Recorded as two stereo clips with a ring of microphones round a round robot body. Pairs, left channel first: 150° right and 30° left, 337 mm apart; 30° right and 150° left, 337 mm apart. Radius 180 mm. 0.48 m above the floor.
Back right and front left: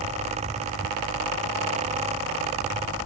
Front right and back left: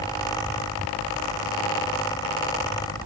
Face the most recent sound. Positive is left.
No sound to turn to.